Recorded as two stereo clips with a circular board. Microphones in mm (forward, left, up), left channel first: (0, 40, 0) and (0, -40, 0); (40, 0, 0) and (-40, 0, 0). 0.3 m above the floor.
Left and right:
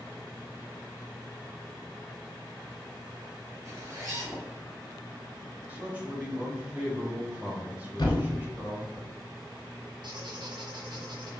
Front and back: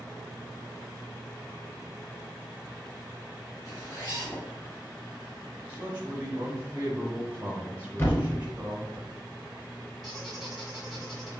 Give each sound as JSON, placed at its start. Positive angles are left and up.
{"t": 3.6, "sound": "a zipper", "azimuth_deg": -45, "distance_m": 2.0}
{"t": 5.7, "sound": "a man speaking", "azimuth_deg": -135, "distance_m": 1.0}
{"t": 8.0, "sound": "a thud", "azimuth_deg": 65, "distance_m": 1.3}
{"t": 10.0, "sound": "a squeak", "azimuth_deg": -85, "distance_m": 1.8}